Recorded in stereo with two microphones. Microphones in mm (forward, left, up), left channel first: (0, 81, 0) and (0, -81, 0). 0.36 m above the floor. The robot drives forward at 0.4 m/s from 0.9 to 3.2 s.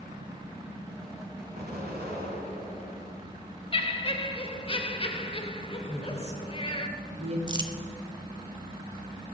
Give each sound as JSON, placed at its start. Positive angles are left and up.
{"t": 1.6, "sound": "an explosion", "side_deg": -80, "distance_m": 1.8}
{"t": 3.7, "sound": "laughter", "side_deg": 35, "distance_m": 0.9}
{"t": 5.9, "sound": "a woman speaking", "side_deg": -40, "distance_m": 1.8}
{"t": 7.5, "sound": "crumpling", "side_deg": -25, "distance_m": 0.7}